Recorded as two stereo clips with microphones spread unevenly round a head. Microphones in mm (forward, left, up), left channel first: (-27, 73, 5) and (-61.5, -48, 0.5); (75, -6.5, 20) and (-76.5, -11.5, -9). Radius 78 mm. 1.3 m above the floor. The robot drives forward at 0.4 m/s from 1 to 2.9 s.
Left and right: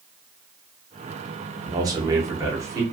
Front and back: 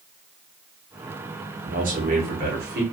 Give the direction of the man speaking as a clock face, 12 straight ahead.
5 o'clock.